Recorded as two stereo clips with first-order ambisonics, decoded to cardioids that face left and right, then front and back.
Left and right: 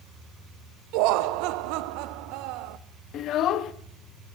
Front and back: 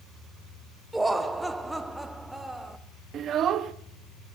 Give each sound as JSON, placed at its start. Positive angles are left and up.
{"t": 0.9, "sound": "laughter", "azimuth_deg": -95, "distance_m": 0.5}
{"t": 3.1, "sound": "a child speaking", "azimuth_deg": 130, "distance_m": 0.6}